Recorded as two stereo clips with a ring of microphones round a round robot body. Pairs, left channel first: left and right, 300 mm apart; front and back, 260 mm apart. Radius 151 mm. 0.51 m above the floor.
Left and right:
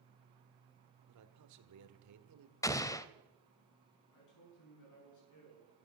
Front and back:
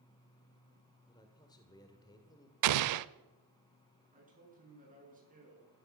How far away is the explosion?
About 0.6 m.